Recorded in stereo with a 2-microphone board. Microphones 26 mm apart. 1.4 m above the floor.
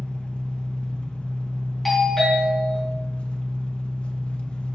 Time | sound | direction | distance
0.0 | an engine running | 60° left (ahead or behind) | 0.9 m
1.9 | a doorbell | centre (ahead or behind) | 3.5 m